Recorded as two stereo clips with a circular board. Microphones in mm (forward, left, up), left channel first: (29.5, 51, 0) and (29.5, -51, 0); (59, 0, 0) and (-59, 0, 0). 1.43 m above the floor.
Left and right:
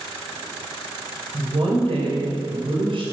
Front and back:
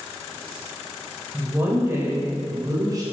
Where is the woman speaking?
105° right, 7 m; by 3.0 s 120° right, 6.5 m.